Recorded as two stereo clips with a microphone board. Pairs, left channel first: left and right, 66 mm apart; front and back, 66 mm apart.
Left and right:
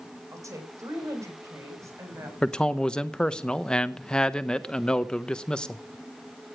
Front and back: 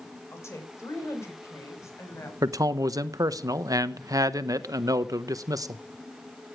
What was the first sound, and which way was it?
A woman speaking, 50° right.